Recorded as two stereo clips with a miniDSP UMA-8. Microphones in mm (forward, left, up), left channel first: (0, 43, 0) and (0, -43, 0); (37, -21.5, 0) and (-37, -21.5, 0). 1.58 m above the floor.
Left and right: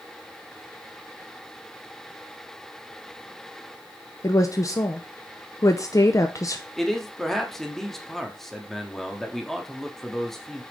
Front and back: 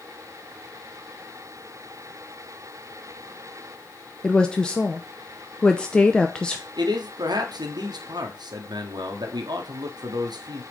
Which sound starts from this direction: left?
A woman speaking, at 4.2 s.